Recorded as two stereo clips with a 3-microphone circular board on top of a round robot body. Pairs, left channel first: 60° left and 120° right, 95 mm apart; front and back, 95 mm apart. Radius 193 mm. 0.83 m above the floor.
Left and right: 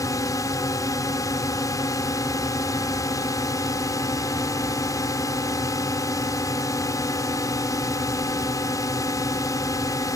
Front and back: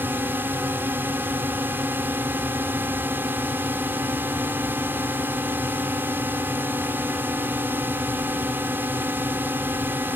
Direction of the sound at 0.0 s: 110° left.